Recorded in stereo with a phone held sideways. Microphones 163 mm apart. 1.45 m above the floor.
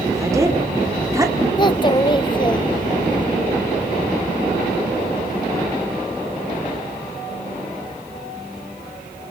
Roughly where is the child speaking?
Left.